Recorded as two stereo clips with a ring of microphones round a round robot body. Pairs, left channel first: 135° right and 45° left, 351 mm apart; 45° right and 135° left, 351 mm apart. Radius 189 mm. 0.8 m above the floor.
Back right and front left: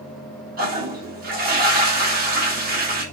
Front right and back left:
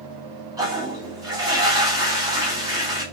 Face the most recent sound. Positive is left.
turn(degrees=65)